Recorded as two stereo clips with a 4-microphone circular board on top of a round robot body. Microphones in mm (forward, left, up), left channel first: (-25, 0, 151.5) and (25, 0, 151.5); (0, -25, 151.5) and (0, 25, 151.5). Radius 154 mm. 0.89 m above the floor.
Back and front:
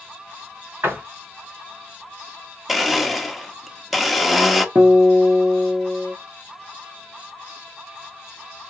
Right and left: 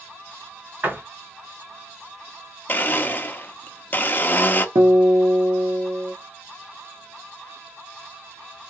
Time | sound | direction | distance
0.8 | a door slam | 40° left | 3 m
2.7 | a blender | 85° right | 0.9 m
4.8 | a guitar | 70° left | 0.6 m